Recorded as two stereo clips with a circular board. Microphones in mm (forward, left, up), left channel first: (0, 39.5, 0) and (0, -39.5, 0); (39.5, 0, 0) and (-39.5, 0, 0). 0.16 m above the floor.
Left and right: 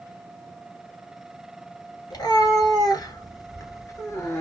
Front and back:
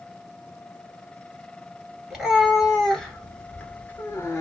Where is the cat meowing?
100° left, 1.6 m; by 4.4 s 45° left, 1.2 m.